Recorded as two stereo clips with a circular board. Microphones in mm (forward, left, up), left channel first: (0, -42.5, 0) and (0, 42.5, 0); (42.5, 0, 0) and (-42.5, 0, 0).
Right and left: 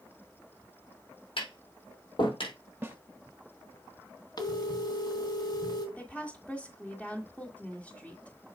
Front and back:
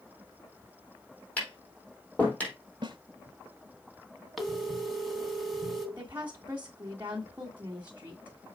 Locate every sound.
1.4 s tapping: 75° right, 4 m
2.8 s a snare drum: 155° left, 0.8 m
4.4 s a phone ringing: 90° right, 1.6 m
6.0 s a woman speaking: 145° right, 1.5 m